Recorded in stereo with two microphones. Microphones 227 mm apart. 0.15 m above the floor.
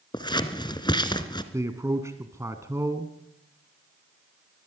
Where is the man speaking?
15° right (ahead or behind), 1.3 m.